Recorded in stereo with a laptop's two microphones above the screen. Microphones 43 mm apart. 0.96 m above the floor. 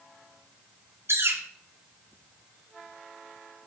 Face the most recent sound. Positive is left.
turn(degrees=-80)